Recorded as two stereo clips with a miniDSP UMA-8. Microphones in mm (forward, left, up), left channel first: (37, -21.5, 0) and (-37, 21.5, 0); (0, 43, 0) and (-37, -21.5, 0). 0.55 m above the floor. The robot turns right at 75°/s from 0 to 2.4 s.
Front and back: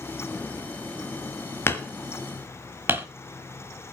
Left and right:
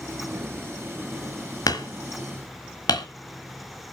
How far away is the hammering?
About 1.3 m.